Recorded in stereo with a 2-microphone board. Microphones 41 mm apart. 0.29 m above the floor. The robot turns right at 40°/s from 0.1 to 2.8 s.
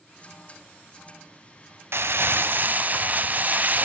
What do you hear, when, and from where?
1.9 s crumpling: 80° right, 0.6 m; by 3.9 s 45° right, 0.6 m